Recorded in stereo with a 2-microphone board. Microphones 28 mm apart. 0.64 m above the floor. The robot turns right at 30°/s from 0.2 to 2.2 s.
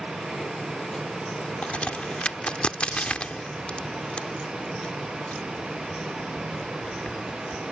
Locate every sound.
1.6 s a crack: 55° left (ahead or behind); by 7.6 s 40° left (ahead or behind)